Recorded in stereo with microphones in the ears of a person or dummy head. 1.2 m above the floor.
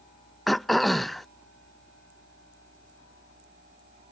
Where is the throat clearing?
5° left (ahead or behind).